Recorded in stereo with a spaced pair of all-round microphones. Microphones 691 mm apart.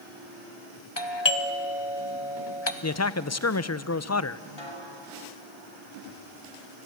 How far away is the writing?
I don't hear writing.